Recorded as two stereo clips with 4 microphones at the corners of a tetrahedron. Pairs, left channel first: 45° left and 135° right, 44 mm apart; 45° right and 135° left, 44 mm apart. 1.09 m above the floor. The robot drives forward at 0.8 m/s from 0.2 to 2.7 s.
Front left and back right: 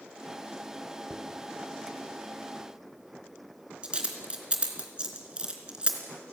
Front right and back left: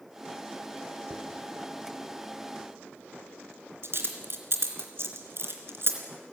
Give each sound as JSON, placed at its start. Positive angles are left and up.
{"t": 1.1, "sound": "a dropped coin", "azimuth_deg": 150, "distance_m": 2.0}